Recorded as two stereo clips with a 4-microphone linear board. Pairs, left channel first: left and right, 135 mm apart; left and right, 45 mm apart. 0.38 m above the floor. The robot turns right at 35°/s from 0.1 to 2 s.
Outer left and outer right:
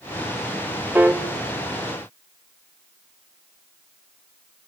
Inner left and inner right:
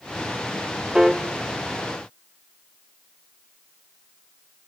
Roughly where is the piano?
Centre.